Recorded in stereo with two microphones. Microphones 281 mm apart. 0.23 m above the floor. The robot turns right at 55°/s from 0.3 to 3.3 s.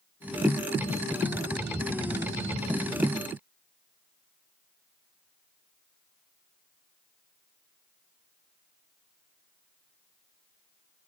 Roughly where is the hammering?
No hammering in this recording.